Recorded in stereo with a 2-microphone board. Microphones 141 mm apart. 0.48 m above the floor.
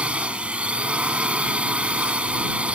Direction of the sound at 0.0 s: 10° right (ahead or behind).